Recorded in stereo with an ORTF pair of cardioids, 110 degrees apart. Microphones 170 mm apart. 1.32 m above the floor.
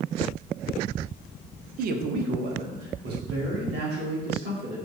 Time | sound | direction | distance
1.8 | a man speaking | 60° right | 0.5 m